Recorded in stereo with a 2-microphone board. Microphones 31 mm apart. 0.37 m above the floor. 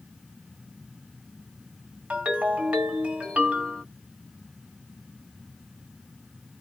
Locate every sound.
2.1 s a ringtone: 50° right (ahead or behind), 1.4 m